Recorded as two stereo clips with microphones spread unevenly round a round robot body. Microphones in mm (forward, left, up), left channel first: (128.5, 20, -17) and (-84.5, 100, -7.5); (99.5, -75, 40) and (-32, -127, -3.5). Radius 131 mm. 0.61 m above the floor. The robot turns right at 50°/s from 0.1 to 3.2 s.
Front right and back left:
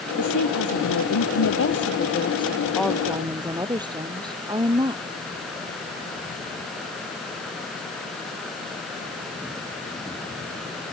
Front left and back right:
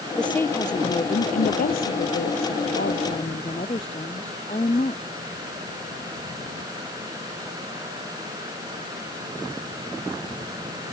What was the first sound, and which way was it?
A woman speaking, 65° right.